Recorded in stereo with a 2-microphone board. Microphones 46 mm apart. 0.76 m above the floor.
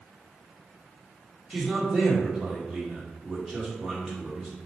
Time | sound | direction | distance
1.5 | a man speaking | 10° right (ahead or behind) | 2 m